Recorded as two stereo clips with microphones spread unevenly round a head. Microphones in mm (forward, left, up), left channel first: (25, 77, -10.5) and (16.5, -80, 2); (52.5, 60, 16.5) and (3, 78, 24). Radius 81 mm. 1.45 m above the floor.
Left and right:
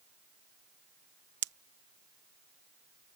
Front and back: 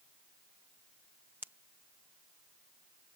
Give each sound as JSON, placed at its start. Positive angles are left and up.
{"t": 1.4, "sound": "a pop", "azimuth_deg": -125}